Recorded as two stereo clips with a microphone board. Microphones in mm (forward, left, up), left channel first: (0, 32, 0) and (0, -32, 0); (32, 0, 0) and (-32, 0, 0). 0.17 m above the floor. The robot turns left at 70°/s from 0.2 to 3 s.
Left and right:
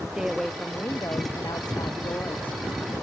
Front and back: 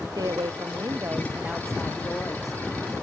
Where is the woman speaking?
170° right; by 2.6 s 25° left.